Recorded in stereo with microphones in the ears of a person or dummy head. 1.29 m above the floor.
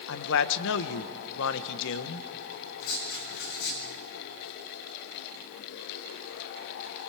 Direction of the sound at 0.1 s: 65° left (ahead or behind).